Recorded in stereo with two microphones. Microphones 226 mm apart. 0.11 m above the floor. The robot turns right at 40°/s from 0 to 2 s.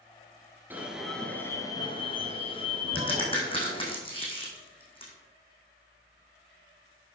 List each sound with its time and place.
0.7 s an alarm: 15° right, 2 m; by 4.0 s 40° left, 2 m
3.0 s a crack: 25° left (ahead or behind), 3.5 m